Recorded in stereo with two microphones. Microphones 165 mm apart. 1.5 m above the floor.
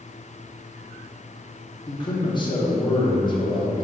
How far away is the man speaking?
About 0.8 m.